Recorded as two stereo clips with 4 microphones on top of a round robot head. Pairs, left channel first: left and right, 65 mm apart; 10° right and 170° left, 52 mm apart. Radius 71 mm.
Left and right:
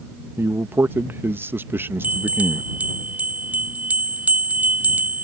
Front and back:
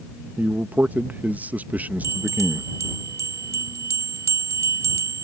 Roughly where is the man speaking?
Behind right.